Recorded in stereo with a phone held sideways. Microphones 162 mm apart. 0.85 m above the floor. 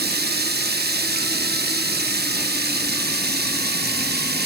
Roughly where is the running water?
Right.